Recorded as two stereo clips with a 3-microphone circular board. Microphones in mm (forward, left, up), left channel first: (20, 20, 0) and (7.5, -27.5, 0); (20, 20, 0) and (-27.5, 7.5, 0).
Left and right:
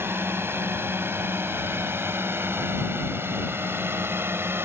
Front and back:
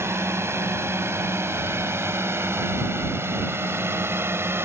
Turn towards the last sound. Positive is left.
turn(degrees=-135)